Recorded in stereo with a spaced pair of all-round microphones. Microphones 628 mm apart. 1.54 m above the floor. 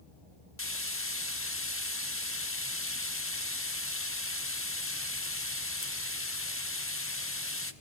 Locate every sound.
0.6 s frying: 20° left (ahead or behind), 1.2 m